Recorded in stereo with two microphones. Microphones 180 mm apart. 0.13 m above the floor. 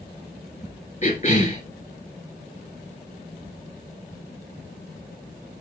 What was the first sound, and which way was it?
A cough, 40° left (ahead or behind).